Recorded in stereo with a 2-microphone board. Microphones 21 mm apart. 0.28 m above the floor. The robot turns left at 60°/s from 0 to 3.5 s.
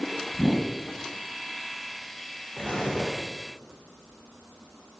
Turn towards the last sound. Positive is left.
turn(degrees=60)